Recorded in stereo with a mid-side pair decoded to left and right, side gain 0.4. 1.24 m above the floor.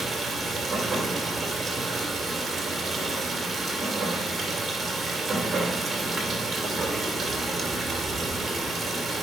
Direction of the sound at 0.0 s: 40° right.